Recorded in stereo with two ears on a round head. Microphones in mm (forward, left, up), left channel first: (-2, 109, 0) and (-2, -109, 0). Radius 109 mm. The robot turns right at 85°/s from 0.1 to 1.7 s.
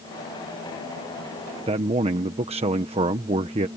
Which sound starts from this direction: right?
A man speaking, at 1.7 s.